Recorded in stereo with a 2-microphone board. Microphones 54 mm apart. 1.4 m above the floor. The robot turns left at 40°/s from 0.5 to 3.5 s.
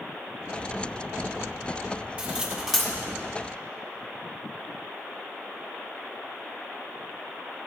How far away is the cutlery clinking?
About 1.4 m.